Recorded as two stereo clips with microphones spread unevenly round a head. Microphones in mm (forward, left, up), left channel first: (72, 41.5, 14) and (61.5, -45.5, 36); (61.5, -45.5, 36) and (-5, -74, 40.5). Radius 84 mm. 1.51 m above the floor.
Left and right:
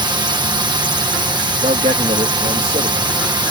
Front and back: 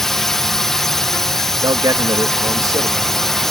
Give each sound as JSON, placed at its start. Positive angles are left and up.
{"t": 0.0, "sound": "a drone", "azimuth_deg": -60}
{"t": 1.6, "sound": "a man speaking", "azimuth_deg": -120}